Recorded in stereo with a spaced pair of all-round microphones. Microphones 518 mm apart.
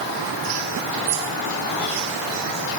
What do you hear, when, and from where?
Only background noise.